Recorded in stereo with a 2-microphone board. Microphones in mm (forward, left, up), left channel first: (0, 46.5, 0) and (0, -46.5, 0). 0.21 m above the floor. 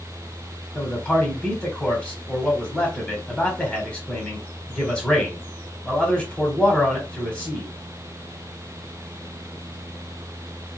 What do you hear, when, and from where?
0.8 s a man speaking: 15° left (ahead or behind), 1.0 m